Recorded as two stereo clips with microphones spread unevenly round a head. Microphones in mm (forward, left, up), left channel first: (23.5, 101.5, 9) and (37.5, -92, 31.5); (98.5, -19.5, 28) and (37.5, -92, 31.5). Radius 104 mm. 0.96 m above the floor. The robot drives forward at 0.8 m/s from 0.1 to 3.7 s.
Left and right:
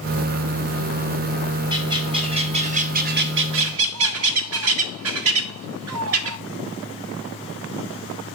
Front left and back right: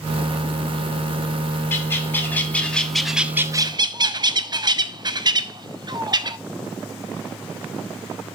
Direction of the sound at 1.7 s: 15° right.